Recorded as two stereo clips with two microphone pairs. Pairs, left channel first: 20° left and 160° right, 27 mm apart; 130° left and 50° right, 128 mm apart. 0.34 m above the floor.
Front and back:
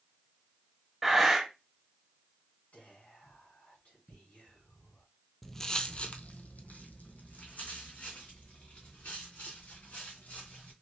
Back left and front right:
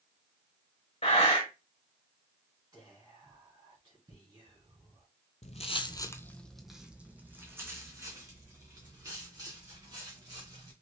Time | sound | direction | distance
1.0 | breathing | 120° left | 1.3 m
2.7 | whispering | 5° left | 3 m
5.4 | footsteps | 110° left | 0.5 m